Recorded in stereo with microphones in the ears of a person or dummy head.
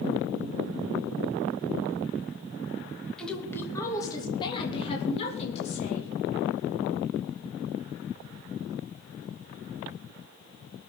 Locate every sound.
3.2 s a woman speaking: 5° left (ahead or behind), 2 m; by 6.1 s 40° left (ahead or behind), 3.5 m